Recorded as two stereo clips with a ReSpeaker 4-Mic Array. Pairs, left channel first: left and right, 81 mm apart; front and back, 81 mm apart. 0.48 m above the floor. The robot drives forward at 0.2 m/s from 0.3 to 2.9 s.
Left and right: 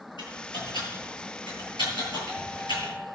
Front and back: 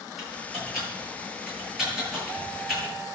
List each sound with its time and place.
0.2 s typing on a keyboard: 95° left, 9.5 m; by 2.9 s 100° left, 10 m